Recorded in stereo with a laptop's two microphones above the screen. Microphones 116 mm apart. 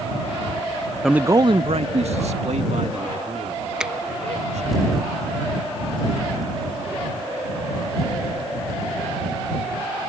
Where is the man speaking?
Centre (ahead or behind); by 4.8 s 85° right.